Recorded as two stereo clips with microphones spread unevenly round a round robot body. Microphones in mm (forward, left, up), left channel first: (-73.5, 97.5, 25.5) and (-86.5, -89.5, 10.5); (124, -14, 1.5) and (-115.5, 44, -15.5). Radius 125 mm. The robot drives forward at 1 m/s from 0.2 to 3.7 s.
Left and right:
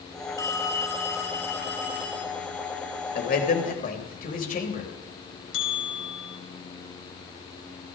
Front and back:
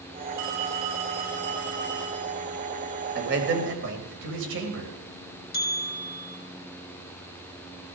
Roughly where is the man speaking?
Behind left.